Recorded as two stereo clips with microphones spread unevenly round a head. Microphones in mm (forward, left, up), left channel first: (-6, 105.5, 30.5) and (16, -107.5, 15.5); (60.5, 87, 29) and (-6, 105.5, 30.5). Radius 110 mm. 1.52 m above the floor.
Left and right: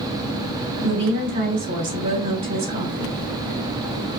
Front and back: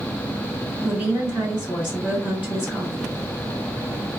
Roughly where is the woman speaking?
Behind right.